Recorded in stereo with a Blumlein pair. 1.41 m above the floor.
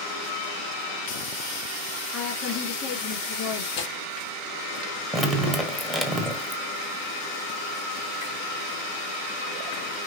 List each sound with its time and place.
2.1 s a woman speaking: 35° left, 2.5 m
3.8 s tearing paper: 45° left, 3 m
5.1 s dripping: 5° right, 1.1 m